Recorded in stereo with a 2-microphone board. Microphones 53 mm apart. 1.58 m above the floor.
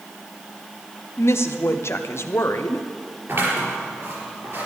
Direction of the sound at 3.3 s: 50° right (ahead or behind).